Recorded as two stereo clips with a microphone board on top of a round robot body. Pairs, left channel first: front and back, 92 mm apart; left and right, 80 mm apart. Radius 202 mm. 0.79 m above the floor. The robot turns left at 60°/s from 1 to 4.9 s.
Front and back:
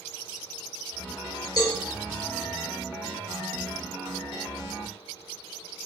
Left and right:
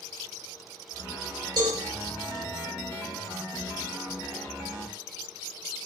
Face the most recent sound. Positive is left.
turn(degrees=110)